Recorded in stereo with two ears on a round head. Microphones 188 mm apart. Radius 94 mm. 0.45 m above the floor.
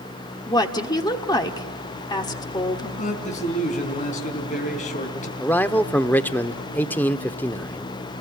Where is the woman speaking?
20° left (ahead or behind), 1.3 m.